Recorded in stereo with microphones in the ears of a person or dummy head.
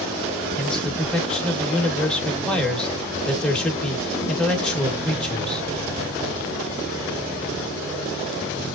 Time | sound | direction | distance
0.6 | a man speaking | 5° left (ahead or behind) | 1.0 m